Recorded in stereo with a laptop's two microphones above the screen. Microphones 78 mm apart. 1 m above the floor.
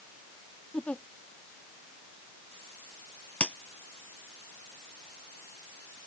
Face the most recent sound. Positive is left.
turn(degrees=15)  # may be behind; listen again after turning